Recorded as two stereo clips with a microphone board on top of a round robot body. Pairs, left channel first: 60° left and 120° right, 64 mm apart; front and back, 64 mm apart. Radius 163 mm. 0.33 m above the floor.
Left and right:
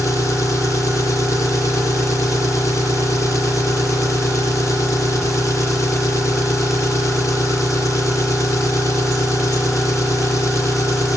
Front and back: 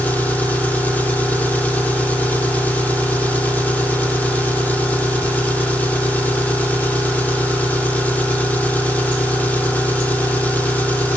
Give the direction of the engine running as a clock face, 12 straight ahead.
10 o'clock.